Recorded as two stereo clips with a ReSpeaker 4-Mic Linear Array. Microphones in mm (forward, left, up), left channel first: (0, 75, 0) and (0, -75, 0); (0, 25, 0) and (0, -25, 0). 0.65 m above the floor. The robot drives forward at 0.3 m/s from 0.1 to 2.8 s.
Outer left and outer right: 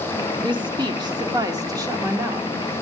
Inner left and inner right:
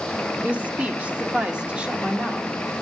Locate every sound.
0.4 s a woman speaking: 30° right (ahead or behind), 1.1 m; by 2.5 s 20° right (ahead or behind), 1.6 m